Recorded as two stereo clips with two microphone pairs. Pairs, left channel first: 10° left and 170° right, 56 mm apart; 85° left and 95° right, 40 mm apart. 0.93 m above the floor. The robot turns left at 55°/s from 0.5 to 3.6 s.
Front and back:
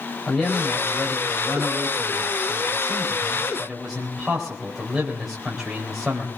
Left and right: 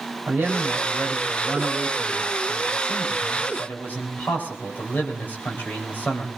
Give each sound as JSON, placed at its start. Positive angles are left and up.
{"t": 0.3, "sound": "a man speaking", "azimuth_deg": -80, "distance_m": 3.5}